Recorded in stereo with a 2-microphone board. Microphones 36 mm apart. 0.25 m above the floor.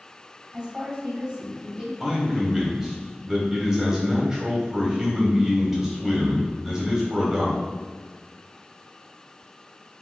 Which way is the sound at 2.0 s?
15° right (ahead or behind).